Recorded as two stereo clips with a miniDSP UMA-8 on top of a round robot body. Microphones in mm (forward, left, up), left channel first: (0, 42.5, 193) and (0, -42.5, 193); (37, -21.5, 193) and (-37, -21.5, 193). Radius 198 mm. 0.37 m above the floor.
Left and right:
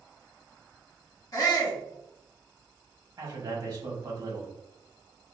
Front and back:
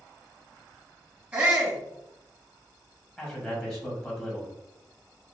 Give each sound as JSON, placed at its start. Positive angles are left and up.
{"t": 1.3, "sound": "a shout", "azimuth_deg": 110, "distance_m": 2.0}
{"t": 3.2, "sound": "a man speaking", "azimuth_deg": -60, "distance_m": 1.9}